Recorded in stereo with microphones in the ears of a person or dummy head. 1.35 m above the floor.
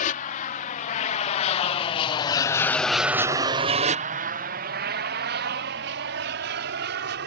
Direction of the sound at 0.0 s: 45° left (ahead or behind).